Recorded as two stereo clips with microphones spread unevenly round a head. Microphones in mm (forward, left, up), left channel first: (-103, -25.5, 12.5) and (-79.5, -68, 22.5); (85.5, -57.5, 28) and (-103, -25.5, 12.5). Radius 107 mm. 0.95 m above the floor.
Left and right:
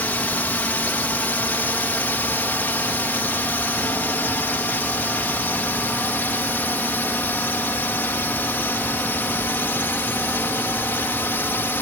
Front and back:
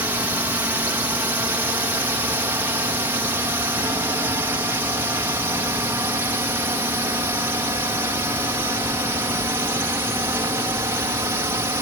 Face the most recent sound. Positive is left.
turn(degrees=100)